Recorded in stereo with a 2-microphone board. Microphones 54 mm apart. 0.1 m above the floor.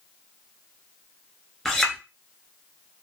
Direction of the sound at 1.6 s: 10° left (ahead or behind).